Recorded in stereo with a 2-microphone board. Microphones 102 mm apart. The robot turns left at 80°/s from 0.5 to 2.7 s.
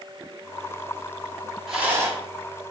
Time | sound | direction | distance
1.7 | a rattle | centre (ahead or behind) | 3 m